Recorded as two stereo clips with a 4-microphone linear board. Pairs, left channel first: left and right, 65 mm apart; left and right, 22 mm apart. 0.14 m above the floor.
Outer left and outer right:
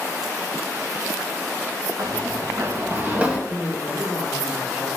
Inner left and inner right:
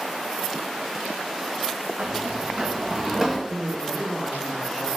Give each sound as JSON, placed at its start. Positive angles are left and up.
{"t": 2.0, "sound": "running footsteps", "side_deg": -75, "distance_m": 1.4}
{"t": 3.5, "sound": "a man speaking", "side_deg": -25, "distance_m": 2.5}